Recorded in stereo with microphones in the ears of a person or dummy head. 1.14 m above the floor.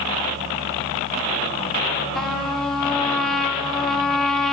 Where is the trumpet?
10° left (ahead or behind), 0.9 m.